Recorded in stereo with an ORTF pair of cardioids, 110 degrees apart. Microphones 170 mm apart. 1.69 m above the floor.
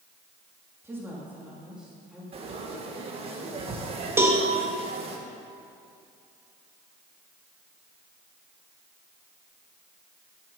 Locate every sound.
0.8 s a woman speaking: 15° right, 3 m; by 2.2 s straight ahead, 3 m
2.3 s frying: 35° right, 1.9 m
4.2 s a cowbell: 15° right, 2 m